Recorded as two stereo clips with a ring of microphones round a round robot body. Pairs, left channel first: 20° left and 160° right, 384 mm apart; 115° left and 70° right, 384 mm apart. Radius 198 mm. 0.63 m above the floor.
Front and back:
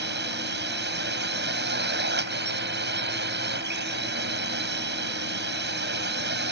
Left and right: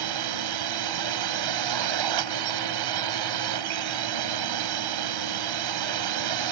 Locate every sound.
0.0 s a drone: 95° right